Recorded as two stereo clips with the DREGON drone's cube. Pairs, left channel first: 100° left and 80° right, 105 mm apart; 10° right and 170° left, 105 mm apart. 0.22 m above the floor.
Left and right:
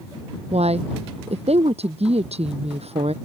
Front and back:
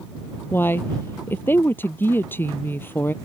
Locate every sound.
0.5 s a woman speaking: 80° right